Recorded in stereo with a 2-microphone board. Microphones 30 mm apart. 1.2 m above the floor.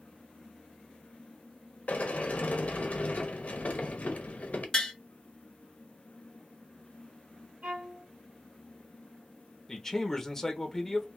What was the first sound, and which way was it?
A sliding door, 55° left (ahead or behind).